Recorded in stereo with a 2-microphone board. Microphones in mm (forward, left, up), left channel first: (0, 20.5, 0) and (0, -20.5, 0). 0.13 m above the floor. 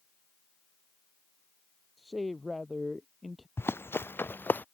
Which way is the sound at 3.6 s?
80° left.